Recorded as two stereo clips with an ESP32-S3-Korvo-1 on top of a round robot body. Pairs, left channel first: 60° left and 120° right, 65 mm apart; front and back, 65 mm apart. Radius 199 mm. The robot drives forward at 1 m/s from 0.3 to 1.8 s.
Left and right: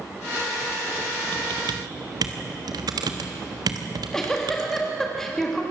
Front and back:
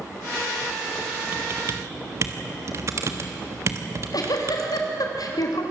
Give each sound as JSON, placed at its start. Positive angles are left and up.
{"t": 1.3, "sound": "typing on a keyboard", "azimuth_deg": -115, "distance_m": 1.1}
{"t": 3.9, "sound": "a giggle", "azimuth_deg": -25, "distance_m": 2.5}